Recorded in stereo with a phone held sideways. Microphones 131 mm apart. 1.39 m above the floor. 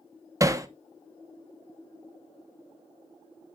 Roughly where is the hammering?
Right.